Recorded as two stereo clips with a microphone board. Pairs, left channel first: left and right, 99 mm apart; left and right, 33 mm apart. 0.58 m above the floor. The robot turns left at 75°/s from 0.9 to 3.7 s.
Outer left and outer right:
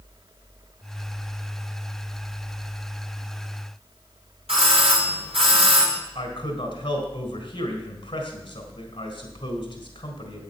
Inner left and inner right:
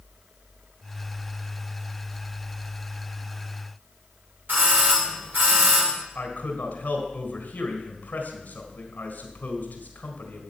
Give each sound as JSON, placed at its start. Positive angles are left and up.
{"t": 4.5, "sound": "a doorbell", "side_deg": -75, "distance_m": 5.0}
{"t": 6.2, "sound": "a man speaking", "side_deg": 50, "distance_m": 4.0}